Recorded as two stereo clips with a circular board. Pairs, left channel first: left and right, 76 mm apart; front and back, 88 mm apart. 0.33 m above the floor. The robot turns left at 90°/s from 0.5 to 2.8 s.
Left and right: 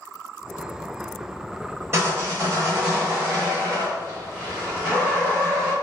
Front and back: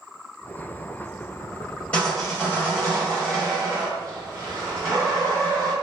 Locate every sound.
1.9 s sawing: 65° right, 2.0 m; by 5.7 s 145° right, 2.0 m